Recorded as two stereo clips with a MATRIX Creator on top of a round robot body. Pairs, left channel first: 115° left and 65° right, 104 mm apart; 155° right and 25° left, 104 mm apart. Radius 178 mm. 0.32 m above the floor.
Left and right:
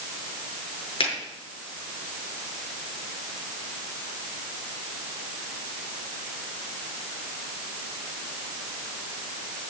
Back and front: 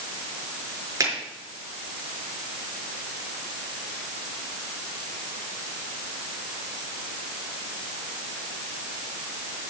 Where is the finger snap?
80° left, 6 m.